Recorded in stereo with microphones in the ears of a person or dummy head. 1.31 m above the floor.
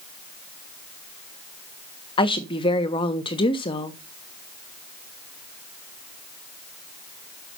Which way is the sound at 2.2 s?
25° left (ahead or behind).